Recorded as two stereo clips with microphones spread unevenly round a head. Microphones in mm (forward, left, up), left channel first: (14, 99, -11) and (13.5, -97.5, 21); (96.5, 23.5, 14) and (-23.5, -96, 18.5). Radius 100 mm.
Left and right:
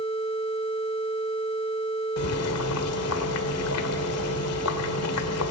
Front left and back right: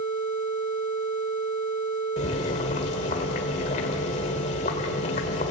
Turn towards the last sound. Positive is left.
turn(degrees=105)